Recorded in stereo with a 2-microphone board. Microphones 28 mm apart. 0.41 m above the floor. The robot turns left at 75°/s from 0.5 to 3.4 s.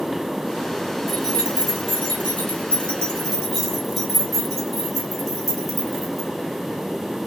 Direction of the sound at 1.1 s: 5° left (ahead or behind).